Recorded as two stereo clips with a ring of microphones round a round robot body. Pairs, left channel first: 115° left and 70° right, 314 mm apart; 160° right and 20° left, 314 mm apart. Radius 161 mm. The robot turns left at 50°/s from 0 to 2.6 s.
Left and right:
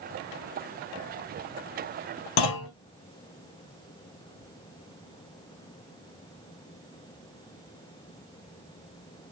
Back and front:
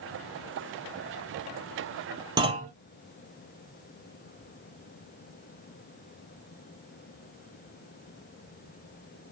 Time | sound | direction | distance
2.4 | a clunk | 100° left | 1.0 m